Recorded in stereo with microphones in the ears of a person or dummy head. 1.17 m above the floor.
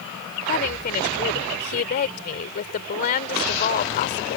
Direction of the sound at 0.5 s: 50° left (ahead or behind).